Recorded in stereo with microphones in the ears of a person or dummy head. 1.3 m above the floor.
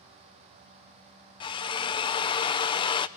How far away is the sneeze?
No sneeze in this recording.